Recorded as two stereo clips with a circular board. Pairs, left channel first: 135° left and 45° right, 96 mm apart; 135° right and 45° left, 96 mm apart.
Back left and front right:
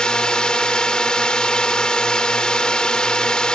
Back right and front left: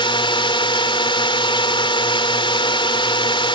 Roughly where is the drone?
Behind right.